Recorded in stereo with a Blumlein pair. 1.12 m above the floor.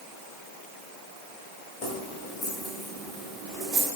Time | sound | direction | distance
1.8 | keys jangling | 35° left | 3 m